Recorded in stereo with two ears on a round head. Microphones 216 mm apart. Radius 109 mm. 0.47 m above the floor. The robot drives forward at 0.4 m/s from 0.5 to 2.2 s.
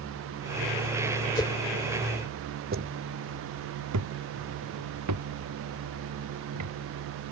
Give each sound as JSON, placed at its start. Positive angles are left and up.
{"t": 1.4, "sound": "a whoosh", "side_deg": 15}
{"t": 2.7, "sound": "footsteps", "side_deg": -40}